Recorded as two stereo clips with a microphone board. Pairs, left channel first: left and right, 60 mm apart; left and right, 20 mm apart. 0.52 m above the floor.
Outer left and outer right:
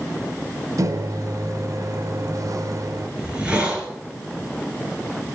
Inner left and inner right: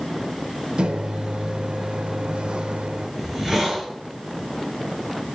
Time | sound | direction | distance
0.8 | a microwave | 60° right (ahead or behind) | 1.1 m
3.2 | a hiss | 20° right (ahead or behind) | 5 m